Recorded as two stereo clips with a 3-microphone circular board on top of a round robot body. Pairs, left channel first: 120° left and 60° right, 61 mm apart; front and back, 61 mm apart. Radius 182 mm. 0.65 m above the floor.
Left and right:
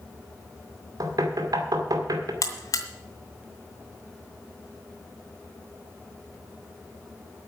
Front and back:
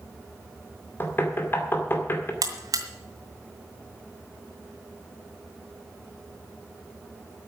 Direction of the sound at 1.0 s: 50° right.